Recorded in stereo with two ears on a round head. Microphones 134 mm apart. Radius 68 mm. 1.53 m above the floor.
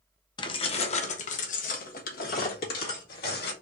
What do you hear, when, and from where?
0.4 s keys jangling: 30° left (ahead or behind), 0.7 m; by 3.5 s 75° left (ahead or behind), 2 m